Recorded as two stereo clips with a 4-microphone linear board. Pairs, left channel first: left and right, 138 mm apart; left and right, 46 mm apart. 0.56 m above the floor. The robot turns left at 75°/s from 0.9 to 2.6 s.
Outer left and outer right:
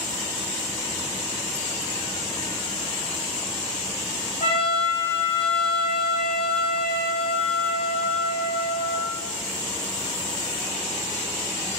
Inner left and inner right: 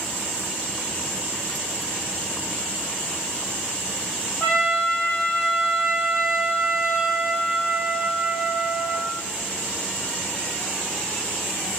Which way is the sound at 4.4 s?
45° left (ahead or behind).